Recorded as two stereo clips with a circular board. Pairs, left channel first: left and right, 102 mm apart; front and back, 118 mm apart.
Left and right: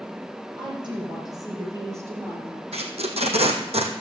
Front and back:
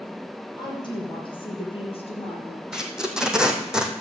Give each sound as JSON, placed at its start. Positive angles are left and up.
{"t": 0.6, "sound": "a woman speaking", "azimuth_deg": -50, "distance_m": 5.0}
{"t": 2.7, "sound": "tape being pulled", "azimuth_deg": -95, "distance_m": 1.6}